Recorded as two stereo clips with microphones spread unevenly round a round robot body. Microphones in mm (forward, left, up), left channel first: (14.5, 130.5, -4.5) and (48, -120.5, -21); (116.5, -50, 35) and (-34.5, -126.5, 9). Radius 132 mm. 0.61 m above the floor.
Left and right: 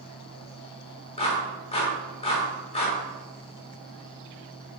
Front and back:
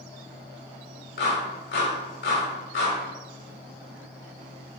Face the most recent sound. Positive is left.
turn(degrees=30)